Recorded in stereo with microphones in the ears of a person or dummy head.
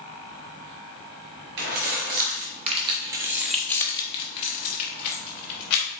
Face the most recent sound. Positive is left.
turn(degrees=65)  # may be behind; listen again after turning